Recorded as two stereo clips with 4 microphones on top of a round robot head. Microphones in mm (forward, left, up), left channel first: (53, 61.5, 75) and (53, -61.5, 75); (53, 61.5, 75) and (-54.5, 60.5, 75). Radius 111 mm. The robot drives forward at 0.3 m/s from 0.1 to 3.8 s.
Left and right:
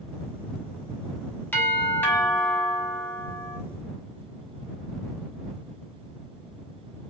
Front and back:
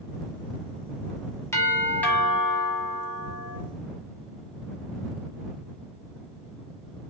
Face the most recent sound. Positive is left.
turn(degrees=140)